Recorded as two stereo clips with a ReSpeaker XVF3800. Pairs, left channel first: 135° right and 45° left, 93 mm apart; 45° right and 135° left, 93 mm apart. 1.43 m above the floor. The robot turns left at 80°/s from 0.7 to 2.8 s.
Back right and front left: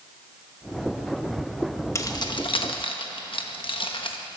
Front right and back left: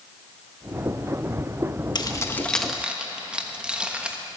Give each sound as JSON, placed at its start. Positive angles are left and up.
{"t": 1.9, "sound": "keys jangling", "azimuth_deg": -80, "distance_m": 1.1}